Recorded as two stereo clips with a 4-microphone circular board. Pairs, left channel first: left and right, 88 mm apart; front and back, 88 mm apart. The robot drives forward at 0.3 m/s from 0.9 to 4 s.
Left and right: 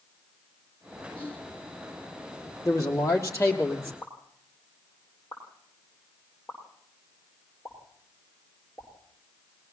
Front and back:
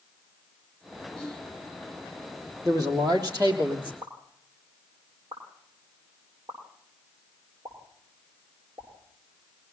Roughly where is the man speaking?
Behind left.